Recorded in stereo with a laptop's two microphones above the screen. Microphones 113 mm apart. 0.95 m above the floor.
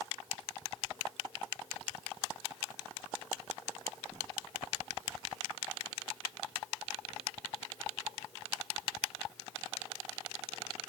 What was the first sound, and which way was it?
Only background noise.